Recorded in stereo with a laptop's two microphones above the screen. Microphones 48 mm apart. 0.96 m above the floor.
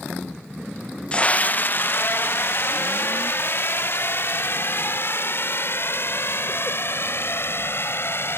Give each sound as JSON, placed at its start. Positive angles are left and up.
{"t": 1.1, "sound": "a scream", "side_deg": 25}